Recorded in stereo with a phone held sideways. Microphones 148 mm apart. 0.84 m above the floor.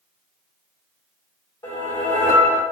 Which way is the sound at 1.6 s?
25° left (ahead or behind).